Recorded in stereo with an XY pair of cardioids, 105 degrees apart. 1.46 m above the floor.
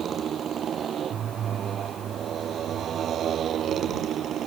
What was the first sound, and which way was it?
A motorcycle, 55° right.